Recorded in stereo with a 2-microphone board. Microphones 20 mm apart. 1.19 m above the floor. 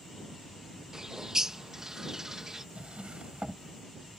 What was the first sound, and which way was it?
A bird, 25° right (ahead or behind).